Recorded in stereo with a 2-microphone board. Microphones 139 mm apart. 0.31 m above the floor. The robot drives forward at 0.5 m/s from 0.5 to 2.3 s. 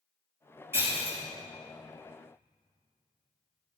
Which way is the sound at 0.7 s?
15° right (ahead or behind).